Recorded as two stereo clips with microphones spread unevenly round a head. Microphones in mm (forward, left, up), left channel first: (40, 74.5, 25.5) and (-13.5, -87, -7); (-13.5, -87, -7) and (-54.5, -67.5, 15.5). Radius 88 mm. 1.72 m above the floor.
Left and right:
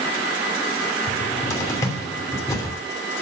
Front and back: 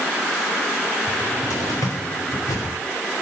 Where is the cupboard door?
5° left, 3 m.